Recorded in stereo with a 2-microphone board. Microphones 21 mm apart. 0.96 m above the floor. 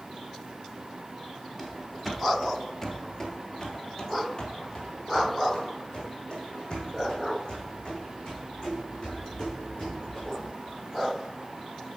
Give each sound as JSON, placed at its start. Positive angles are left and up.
{"t": 1.6, "sound": "running footsteps", "side_deg": -15, "distance_m": 1.0}